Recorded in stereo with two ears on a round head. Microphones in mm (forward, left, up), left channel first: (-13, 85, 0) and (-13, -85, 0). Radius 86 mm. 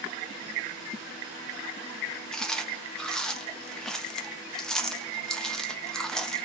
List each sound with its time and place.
2.3 s chewing: 5° left (ahead or behind), 0.6 m